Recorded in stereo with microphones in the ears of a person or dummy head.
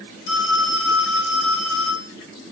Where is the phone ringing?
80° left, 5.5 m.